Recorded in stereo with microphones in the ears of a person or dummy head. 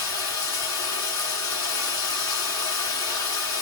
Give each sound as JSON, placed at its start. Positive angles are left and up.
{"t": 0.0, "sound": "running water", "side_deg": 15, "distance_m": 1.2}